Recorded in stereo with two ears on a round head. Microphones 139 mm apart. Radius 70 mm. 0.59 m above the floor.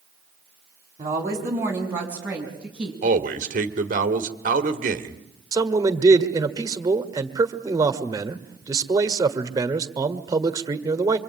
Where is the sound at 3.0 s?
50° right (ahead or behind), 1.9 m.